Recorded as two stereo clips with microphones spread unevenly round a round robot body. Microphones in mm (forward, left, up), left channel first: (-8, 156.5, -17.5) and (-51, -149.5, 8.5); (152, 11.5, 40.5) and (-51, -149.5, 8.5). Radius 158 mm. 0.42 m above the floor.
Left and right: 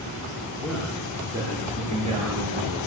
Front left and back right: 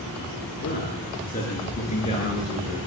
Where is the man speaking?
10° right, 6 m; by 2.8 s 35° right, 7.5 m.